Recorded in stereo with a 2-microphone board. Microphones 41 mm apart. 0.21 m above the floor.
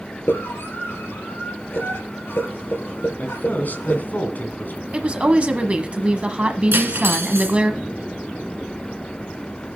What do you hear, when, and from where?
0.3 s a scream: 70° left (ahead or behind), 3.5 m
3.2 s a man speaking: 50° left (ahead or behind), 2.0 m
4.9 s a woman speaking: 30° right (ahead or behind), 1.1 m
6.7 s cutlery clinking: 60° right (ahead or behind), 1.4 m